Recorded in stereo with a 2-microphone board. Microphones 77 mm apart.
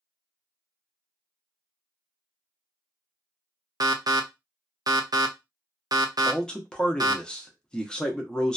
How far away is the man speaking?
About 0.6 m.